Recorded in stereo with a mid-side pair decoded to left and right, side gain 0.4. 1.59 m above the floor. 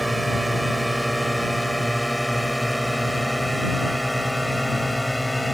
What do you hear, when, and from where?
0.0 s a drone: 10° right; by 5.5 s 5° left